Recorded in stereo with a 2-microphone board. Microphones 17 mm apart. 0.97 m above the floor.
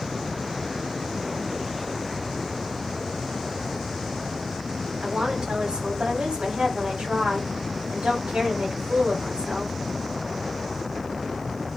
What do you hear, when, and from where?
5.0 s a woman speaking: 80° right, 7.5 m